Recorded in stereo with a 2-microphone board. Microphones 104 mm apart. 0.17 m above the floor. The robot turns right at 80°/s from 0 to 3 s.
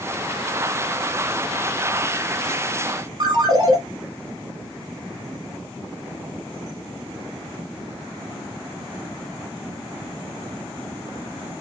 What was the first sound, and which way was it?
A ringtone, 40° right (ahead or behind).